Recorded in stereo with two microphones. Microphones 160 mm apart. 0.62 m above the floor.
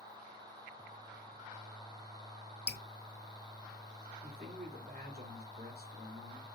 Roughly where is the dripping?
Left.